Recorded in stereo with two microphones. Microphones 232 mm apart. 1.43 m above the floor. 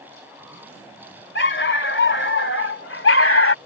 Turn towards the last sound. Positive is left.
turn(degrees=65)  # may be behind; listen again after turning